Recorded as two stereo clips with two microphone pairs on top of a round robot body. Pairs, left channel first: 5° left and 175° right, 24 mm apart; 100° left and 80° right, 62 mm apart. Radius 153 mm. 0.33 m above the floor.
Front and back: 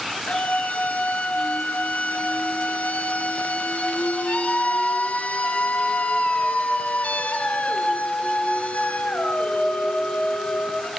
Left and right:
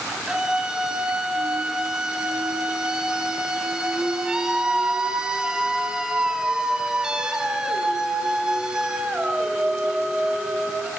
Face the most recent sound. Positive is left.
turn(degrees=0)